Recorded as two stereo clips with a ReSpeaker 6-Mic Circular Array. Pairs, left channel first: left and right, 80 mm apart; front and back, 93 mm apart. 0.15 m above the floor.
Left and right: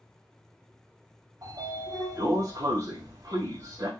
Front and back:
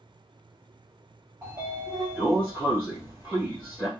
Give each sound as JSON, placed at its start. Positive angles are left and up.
{"t": 1.4, "sound": "a sliding door", "azimuth_deg": -115, "distance_m": 2.5}